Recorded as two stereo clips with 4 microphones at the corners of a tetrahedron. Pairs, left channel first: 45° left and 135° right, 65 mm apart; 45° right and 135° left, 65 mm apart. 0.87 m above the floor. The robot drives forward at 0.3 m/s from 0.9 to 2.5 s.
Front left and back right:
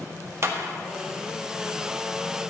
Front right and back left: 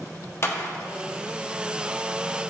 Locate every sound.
0.4 s a clap: 90° right, 1.0 m